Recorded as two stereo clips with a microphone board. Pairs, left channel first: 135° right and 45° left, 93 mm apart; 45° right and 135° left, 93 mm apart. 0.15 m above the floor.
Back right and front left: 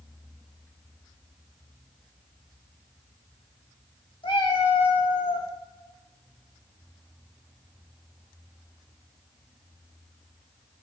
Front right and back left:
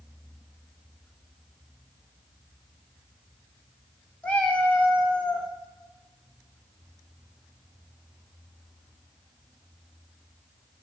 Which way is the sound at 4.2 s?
120° right.